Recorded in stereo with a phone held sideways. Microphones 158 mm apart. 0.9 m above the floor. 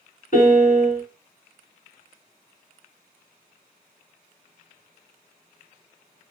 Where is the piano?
60° left (ahead or behind), 1.6 m.